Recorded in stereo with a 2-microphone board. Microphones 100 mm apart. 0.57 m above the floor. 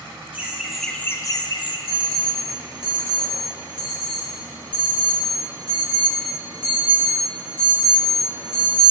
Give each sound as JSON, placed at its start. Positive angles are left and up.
{"t": 0.3, "sound": "laughter", "side_deg": -20, "distance_m": 1.4}
{"t": 1.9, "sound": "an alarm", "side_deg": -55, "distance_m": 3.5}